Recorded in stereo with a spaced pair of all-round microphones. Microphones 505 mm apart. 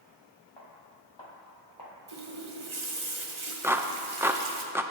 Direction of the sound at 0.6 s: 60° left (ahead or behind).